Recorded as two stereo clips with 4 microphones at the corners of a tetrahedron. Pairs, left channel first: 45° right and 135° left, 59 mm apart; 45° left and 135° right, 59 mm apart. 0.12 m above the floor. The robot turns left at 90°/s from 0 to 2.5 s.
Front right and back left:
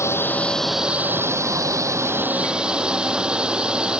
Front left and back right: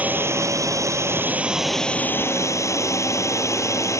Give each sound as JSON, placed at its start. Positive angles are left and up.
{"t": 0.0, "sound": "a drone", "azimuth_deg": -70}